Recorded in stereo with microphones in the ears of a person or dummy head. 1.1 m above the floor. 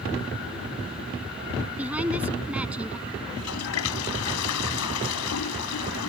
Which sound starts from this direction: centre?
A woman speaking, at 1.8 s.